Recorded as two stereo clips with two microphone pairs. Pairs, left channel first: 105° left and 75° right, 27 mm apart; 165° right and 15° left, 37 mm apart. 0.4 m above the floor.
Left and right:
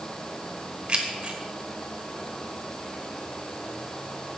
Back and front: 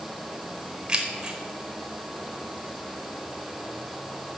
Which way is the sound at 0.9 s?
40° right.